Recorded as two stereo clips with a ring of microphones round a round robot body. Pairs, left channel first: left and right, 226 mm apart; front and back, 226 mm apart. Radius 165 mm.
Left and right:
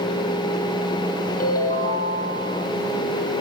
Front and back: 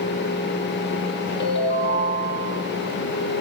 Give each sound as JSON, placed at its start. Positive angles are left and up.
{"t": 1.4, "sound": "a ringtone", "azimuth_deg": 40, "distance_m": 8.5}